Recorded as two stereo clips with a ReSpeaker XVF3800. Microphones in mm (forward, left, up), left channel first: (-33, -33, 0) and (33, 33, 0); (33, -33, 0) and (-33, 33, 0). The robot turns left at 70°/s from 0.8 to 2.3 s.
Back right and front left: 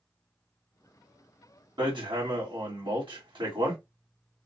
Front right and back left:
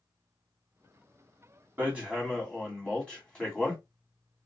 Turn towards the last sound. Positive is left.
turn(degrees=35)